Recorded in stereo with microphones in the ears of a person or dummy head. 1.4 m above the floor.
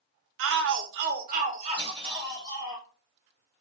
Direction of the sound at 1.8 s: 30° right (ahead or behind).